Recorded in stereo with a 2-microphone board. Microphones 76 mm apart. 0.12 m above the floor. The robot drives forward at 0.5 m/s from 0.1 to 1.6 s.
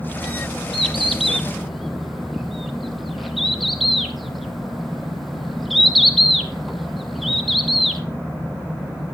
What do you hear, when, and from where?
0.7 s a bird: centre (ahead or behind), 0.8 m